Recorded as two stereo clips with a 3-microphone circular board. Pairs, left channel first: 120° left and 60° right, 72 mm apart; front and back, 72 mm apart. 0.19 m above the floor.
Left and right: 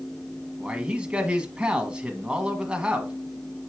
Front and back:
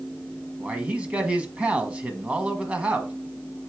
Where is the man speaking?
125° right, 1.3 m.